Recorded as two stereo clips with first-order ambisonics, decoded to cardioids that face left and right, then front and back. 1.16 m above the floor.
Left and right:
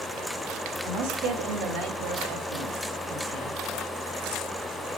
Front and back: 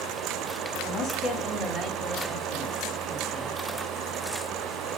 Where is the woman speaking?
50° right, 2 m; by 3.6 s 110° right, 3.5 m.